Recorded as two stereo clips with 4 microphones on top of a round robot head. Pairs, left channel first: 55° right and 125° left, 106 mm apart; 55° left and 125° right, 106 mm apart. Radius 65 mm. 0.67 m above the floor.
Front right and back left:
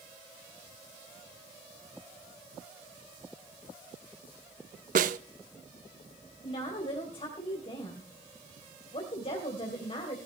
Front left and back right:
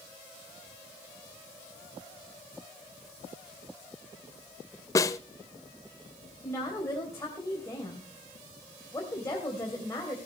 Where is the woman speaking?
10° right, 3 m.